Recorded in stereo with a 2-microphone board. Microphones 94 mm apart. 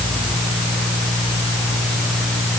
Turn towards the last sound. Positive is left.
No sound to turn to.